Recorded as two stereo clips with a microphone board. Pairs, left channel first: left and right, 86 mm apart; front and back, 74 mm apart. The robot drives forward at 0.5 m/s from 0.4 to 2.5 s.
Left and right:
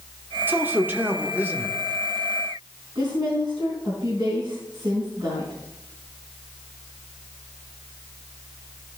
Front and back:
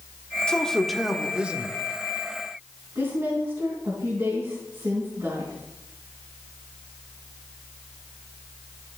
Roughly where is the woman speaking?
Behind right.